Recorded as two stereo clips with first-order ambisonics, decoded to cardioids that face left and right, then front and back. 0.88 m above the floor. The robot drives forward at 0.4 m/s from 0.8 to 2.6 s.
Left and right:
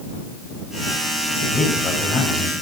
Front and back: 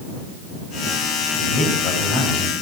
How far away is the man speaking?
About 6 m.